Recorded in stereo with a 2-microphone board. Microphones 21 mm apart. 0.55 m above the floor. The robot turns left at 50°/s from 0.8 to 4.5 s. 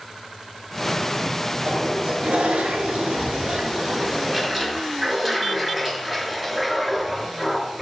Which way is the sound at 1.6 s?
35° right.